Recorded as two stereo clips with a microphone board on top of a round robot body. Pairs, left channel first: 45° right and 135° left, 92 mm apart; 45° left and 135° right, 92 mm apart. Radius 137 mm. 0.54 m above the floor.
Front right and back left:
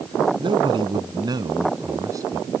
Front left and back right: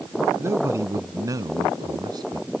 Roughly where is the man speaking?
Behind.